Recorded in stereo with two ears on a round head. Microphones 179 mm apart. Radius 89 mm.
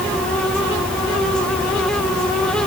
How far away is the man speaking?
No man speaking in this recording.